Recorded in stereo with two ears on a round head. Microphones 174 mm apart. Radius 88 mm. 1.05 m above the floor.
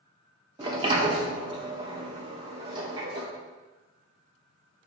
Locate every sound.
0.6 s a sliding door: 25° right (ahead or behind), 0.9 m